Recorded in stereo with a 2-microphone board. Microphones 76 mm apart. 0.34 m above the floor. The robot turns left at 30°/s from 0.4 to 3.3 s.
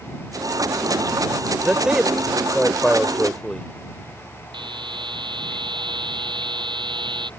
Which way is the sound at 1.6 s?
10° right (ahead or behind).